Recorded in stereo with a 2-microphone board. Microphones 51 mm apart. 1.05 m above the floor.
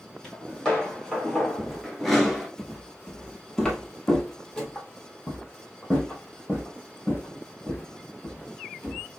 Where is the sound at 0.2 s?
15° left (ahead or behind), 3 m; by 2.5 s centre (ahead or behind), 1.0 m.